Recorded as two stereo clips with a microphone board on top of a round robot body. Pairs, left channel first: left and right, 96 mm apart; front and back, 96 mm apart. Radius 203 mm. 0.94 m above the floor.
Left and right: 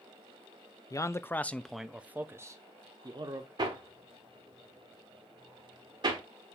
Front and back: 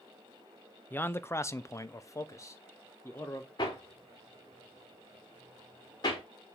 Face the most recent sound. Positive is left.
turn(degrees=-50)